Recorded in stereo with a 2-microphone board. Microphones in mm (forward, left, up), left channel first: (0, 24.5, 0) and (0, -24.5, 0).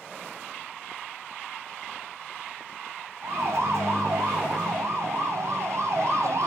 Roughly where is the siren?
Right.